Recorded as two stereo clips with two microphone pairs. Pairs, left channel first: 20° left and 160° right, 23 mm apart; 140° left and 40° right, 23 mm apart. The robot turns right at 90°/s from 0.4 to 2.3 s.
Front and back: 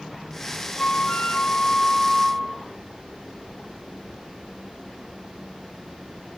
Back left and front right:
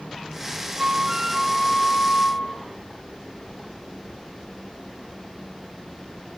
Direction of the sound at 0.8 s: 5° right.